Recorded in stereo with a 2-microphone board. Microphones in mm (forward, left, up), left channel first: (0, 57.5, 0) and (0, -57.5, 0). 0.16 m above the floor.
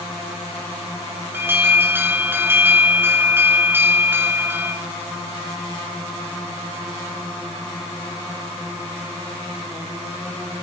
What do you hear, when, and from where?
1.3 s an alarm: 20° right (ahead or behind), 1.9 m